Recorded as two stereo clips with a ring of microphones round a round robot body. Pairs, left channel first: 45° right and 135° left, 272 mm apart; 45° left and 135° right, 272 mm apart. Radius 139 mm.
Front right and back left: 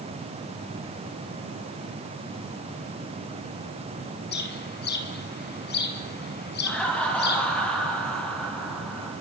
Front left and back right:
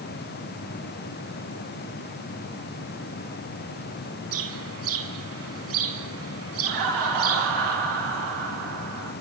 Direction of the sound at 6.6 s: 130° right.